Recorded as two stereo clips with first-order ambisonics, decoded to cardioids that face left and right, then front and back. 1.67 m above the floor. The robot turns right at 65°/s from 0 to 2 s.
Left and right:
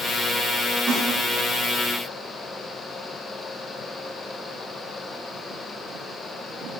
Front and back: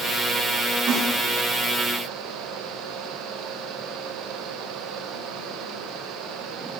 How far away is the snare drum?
About 5 m.